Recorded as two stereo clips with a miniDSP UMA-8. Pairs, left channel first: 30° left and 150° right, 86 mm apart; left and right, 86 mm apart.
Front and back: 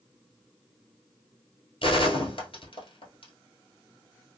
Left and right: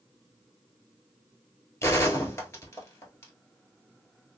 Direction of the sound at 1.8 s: 30° left.